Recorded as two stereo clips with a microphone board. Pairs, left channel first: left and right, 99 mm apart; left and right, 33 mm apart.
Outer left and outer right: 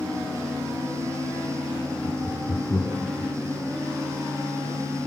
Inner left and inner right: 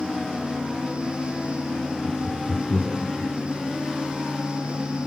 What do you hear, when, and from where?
2.0 s laughter: 20° left (ahead or behind), 2.5 m